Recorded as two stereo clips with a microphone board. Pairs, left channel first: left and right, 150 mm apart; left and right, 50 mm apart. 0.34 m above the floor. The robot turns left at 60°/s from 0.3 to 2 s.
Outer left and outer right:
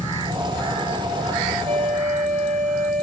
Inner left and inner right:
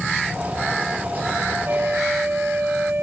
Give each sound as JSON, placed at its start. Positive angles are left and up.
{"t": 1.6, "sound": "a flute", "side_deg": -50, "distance_m": 1.3}